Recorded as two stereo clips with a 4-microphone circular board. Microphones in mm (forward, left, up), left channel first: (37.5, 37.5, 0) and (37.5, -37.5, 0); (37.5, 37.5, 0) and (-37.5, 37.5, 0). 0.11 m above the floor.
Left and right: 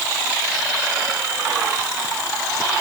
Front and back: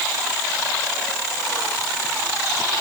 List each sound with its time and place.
Only background noise.